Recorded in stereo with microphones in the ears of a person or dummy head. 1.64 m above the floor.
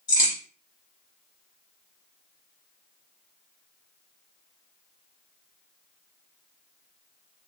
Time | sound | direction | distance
0.1 | a crack | 20° left (ahead or behind) | 1.1 m